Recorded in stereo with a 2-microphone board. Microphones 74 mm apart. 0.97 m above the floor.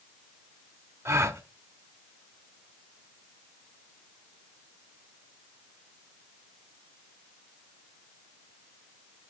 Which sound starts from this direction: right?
A gasp, at 1.1 s.